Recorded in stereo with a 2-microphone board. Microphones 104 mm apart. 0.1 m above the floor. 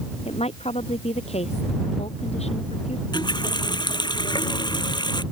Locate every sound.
0.2 s a woman speaking: 85° left
3.1 s a running tap: 45° left (ahead or behind)